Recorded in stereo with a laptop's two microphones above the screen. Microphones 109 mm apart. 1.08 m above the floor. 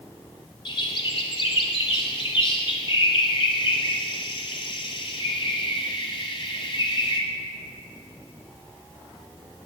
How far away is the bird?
About 1.4 m.